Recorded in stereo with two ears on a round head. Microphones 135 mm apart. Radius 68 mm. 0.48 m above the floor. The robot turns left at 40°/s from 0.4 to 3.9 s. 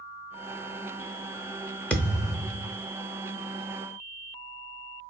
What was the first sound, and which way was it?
A thud, 170° left.